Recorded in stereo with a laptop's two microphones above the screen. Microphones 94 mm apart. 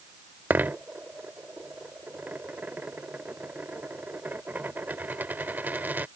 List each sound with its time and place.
0.5 s a dropped coin: 20° right (ahead or behind)